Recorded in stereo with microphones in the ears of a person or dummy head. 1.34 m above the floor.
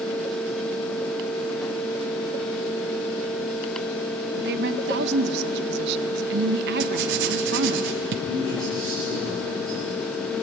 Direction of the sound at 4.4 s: 60° right (ahead or behind).